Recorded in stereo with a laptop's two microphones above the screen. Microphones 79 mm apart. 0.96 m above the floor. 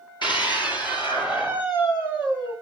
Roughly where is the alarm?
I don't hear an alarm.